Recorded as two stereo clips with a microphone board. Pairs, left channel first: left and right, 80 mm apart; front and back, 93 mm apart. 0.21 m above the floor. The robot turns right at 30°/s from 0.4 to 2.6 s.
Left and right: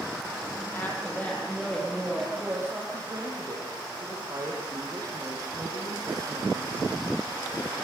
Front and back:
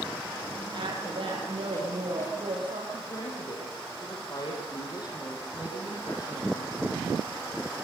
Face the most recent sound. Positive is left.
turn(degrees=-45)